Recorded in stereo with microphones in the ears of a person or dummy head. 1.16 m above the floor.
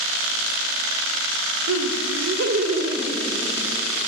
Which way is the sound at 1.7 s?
80° right.